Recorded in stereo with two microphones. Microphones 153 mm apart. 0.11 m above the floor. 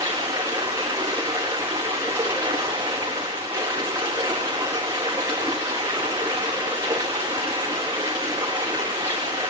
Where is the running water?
30° right (ahead or behind), 5 m.